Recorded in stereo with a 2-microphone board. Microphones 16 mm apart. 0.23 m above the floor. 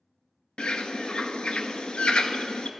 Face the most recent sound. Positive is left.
turn(degrees=85)